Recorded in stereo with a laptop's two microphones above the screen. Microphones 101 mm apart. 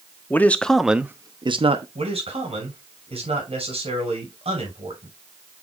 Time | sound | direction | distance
0.3 | a man speaking | 20° left (ahead or behind) | 1.5 m
1.9 | a man speaking | 80° right | 6 m